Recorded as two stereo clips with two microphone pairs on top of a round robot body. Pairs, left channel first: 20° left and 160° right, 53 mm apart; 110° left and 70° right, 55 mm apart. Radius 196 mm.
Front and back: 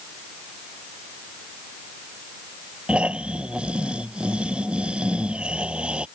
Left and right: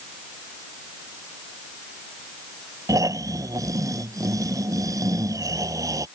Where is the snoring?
90° right.